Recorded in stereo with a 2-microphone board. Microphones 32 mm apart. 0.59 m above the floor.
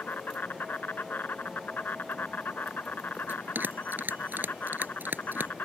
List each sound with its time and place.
0.0 s an insect: 70° left (ahead or behind)
3.3 s a bell: 85° right